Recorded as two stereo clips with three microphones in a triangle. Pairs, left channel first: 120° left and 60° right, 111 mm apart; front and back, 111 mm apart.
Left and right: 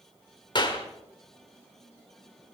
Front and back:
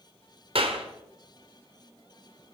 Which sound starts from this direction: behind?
A clap, at 0.6 s.